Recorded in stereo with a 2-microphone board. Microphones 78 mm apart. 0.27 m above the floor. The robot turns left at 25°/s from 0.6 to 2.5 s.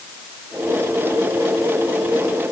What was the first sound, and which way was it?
Only background noise.